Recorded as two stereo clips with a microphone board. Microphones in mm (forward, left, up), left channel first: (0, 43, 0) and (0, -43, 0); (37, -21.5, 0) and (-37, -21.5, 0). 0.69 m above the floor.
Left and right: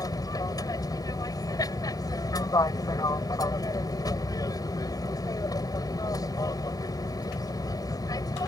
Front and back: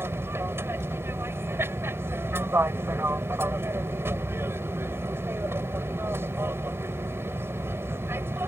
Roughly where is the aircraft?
Behind left.